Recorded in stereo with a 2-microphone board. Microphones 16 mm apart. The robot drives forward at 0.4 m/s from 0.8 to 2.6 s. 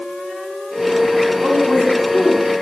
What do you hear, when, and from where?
1.4 s a woman speaking: 55° right (ahead or behind), 5 m; by 2.5 s 60° right (ahead or behind), 4.5 m